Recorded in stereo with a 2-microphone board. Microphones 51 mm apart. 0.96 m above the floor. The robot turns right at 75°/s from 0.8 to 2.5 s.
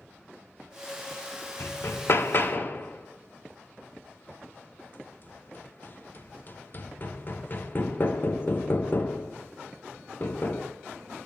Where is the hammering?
40° left (ahead or behind), 0.6 m.